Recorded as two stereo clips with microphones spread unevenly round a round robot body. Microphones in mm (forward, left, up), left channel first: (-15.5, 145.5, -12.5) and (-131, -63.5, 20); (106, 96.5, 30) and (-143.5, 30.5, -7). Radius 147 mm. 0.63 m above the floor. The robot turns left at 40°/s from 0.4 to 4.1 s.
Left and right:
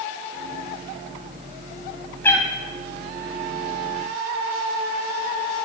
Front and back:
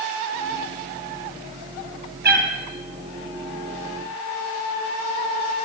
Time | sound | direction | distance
2.2 | a cat meowing | 145° left | 2 m